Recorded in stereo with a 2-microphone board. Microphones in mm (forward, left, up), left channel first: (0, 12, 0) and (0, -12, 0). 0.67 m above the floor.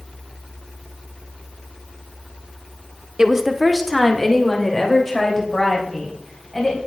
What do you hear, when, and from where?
3.2 s a woman speaking: 25° right (ahead or behind), 1.0 m; by 6.8 s 25° left (ahead or behind), 5 m